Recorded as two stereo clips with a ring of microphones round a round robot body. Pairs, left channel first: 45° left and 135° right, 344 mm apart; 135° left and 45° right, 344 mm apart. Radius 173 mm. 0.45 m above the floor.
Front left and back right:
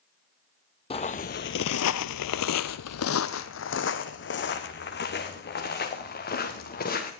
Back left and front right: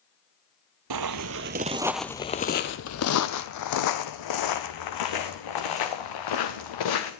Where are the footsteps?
25° right, 0.7 m; by 7.1 s 110° left, 3 m.